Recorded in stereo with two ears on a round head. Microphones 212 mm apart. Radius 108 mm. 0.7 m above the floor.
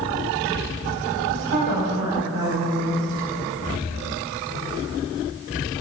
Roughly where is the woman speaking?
Right.